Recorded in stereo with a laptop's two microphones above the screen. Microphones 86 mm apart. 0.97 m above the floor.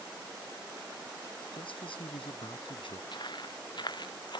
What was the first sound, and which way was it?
A man speaking, 85° left.